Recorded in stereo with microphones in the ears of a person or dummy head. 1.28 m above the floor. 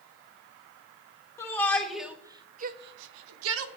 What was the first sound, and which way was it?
A shout, 20° left (ahead or behind).